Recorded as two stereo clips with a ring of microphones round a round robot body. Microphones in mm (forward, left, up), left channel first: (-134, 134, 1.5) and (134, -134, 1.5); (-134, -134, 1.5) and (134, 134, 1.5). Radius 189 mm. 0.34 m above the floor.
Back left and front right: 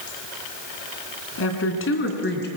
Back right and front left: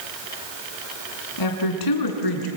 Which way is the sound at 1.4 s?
170° right.